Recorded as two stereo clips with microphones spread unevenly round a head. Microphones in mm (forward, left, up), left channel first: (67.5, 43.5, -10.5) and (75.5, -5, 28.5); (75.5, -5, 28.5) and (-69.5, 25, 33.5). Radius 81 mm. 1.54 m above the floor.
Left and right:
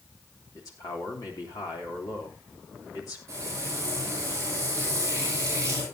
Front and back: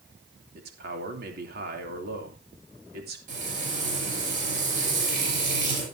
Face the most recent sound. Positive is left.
turn(degrees=-150)